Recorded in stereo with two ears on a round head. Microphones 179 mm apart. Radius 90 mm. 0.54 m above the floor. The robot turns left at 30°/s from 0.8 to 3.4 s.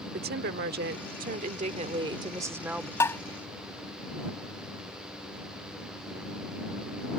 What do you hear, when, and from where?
0.1 s a woman speaking: 110° right; by 2.9 s 175° right
3.0 s tapping: 15° left (ahead or behind); by 3.2 s 10° left (ahead or behind)